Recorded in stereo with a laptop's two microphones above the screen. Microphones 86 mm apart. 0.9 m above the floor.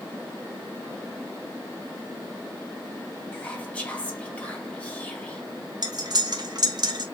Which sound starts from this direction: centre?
Whispering, at 3.3 s.